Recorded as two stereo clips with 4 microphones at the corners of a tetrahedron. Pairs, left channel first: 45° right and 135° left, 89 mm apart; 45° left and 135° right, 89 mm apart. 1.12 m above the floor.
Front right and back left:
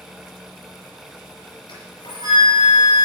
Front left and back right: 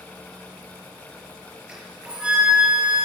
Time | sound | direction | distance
1.7 | a flute | 55° right | 4.5 m